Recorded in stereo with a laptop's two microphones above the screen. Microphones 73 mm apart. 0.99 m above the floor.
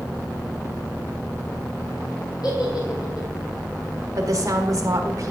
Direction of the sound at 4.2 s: 50° right (ahead or behind).